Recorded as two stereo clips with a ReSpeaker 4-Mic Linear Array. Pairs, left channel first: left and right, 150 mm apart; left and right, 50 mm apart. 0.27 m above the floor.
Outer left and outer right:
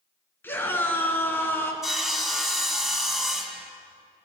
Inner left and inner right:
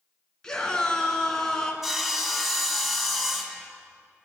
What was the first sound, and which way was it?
A scream, 15° left (ahead or behind).